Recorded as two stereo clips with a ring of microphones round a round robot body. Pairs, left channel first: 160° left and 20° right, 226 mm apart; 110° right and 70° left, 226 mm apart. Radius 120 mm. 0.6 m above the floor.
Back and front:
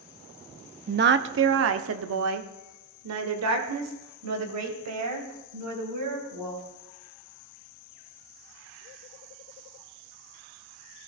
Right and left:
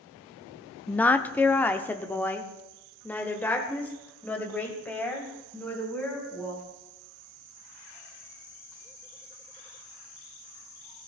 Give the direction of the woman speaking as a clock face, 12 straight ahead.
1 o'clock.